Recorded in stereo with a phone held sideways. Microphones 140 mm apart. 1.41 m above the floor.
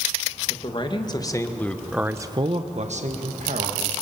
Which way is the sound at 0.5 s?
45° left (ahead or behind).